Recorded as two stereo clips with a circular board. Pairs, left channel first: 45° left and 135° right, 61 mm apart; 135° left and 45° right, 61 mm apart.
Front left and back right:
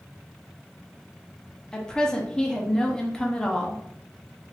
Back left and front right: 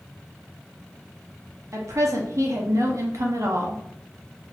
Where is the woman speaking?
30° right, 0.7 m.